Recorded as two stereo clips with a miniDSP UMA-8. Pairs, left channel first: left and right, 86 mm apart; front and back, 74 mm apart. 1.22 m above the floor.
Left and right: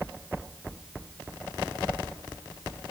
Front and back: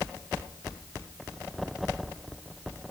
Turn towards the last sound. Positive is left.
No sound to turn to.